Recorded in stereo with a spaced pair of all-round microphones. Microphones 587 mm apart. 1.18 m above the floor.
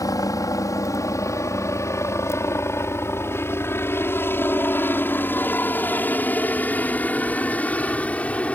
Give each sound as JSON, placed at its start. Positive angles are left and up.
{"t": 0.0, "sound": "a helicopter", "side_deg": 5}